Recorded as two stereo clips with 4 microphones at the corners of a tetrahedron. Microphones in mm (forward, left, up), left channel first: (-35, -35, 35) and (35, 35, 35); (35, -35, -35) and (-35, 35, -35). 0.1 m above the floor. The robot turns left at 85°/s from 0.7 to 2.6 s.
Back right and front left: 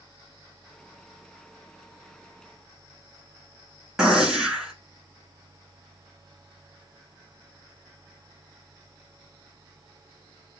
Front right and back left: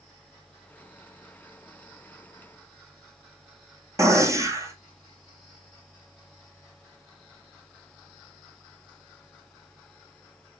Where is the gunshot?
120° left, 1.0 m.